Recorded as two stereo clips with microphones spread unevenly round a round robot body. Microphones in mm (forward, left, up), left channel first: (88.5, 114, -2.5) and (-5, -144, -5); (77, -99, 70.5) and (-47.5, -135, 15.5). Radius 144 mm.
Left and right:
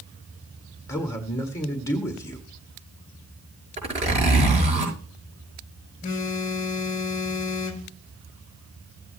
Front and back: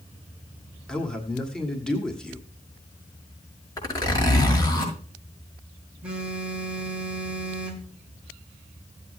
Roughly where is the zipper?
Ahead right.